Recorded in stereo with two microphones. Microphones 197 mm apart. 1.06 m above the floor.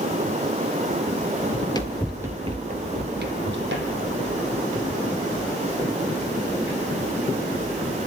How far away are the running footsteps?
About 1.6 m.